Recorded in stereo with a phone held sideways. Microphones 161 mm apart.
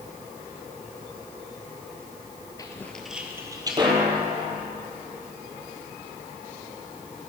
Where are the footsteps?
25° left (ahead or behind), 1.3 m; by 4.6 s 40° right (ahead or behind), 3 m.